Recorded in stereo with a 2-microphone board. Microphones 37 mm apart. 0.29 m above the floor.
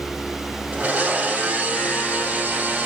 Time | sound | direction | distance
0.7 | a blender | 40° right (ahead or behind) | 2 m